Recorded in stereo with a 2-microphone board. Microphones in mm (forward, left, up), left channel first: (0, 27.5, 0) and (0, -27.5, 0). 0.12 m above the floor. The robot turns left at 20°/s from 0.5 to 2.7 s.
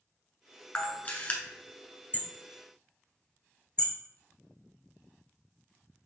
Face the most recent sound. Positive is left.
turn(degrees=20)  # may be behind; listen again after turning